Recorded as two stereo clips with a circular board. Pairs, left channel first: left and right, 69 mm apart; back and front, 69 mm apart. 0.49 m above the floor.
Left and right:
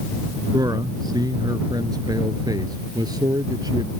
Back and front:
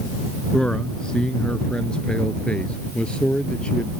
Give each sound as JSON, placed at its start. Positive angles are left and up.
{"t": 0.5, "sound": "a man speaking", "azimuth_deg": -105}